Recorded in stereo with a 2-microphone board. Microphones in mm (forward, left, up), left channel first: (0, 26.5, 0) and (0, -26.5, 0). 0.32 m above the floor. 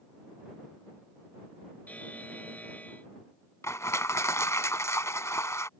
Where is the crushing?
75° left (ahead or behind).